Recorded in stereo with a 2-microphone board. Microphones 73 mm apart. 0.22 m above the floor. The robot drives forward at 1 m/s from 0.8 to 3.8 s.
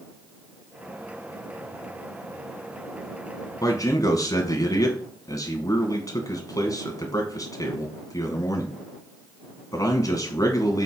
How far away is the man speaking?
About 1.7 m.